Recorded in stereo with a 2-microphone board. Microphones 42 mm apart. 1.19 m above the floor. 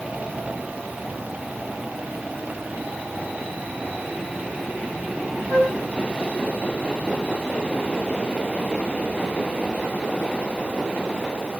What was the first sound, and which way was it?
A flute, 75° right (ahead or behind).